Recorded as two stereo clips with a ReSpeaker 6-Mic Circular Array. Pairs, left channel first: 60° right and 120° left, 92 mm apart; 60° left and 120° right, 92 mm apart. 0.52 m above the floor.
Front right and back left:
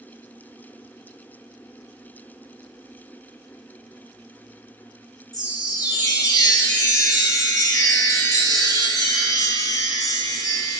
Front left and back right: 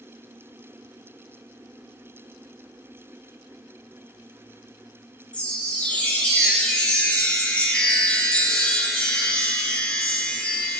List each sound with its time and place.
5.3 s a chime: 15° right, 1.6 m